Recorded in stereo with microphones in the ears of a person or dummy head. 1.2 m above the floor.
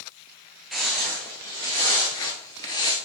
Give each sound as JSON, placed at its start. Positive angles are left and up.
{"t": 0.7, "sound": "footsteps", "side_deg": 0, "distance_m": 1.3}